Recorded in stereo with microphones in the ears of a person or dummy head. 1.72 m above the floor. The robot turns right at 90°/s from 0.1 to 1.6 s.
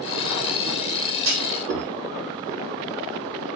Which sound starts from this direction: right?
A clunk, at 1.2 s.